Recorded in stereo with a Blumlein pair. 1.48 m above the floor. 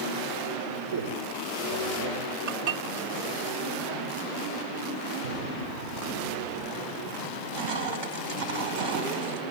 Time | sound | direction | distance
0.9 | a man speaking | 60° right | 4 m
2.5 | dishes clattering | 45° right | 2 m
5.2 | an explosion | 55° right | 4.5 m
7.2 | crushing | 45° right | 4 m